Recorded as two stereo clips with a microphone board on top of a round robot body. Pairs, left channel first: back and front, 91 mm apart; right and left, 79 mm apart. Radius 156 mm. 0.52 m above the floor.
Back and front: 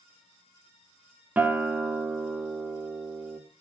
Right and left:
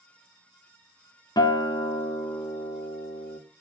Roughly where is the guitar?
Right.